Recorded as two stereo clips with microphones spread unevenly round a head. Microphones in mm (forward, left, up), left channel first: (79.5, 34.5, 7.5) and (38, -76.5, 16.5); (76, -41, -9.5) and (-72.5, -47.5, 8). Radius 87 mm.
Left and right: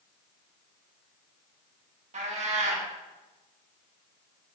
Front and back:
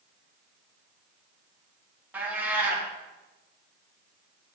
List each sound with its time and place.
2.1 s a cat meowing: 105° right, 1.6 m